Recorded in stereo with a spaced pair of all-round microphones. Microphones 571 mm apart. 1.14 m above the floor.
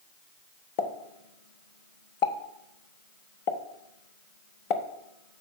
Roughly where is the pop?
Left.